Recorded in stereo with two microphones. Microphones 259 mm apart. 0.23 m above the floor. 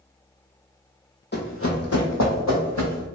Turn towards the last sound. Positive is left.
turn(degrees=80)